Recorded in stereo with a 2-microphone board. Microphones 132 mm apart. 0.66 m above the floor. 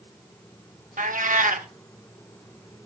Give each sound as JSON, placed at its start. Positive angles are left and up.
{"t": 1.0, "sound": "a cat meowing", "side_deg": -75, "distance_m": 0.9}